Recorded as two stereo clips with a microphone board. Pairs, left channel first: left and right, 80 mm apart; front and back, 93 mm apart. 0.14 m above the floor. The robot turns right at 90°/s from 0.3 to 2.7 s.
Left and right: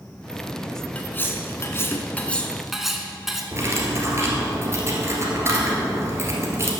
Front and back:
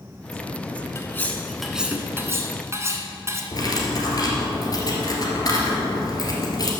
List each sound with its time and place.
0.9 s cutlery clinking: 30° left, 0.9 m; by 3.4 s 175° right, 0.9 m
3.5 s cutlery clinking: 40° right, 1.6 m